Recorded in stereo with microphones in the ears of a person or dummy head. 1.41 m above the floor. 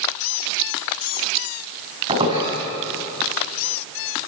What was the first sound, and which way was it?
A squeak, 25° right (ahead or behind).